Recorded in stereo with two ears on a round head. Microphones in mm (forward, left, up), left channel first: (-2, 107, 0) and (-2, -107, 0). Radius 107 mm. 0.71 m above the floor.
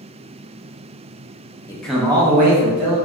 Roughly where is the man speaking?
Centre.